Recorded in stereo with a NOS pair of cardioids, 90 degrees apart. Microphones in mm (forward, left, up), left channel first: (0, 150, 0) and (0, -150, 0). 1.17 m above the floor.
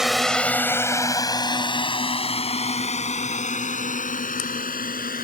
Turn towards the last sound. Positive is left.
turn(degrees=30)